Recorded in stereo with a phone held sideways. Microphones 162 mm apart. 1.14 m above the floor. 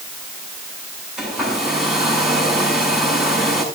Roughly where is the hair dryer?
Centre.